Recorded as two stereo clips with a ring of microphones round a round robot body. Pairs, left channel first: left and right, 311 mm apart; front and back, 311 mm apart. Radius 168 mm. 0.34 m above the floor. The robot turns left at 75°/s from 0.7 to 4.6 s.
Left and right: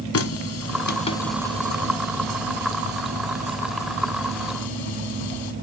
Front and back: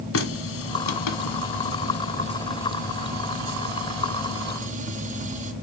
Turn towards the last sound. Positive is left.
turn(degrees=115)